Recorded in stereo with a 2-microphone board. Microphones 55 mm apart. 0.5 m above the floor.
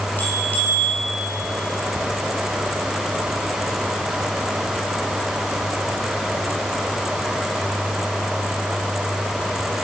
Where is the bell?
30° left (ahead or behind), 6.5 m.